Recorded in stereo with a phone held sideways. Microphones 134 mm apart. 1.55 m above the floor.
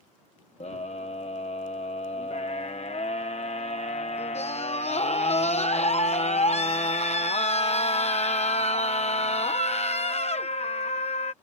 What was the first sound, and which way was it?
A scream, 50° left (ahead or behind).